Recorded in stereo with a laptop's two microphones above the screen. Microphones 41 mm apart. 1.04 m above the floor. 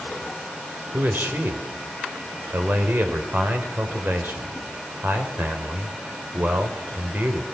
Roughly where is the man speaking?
Right.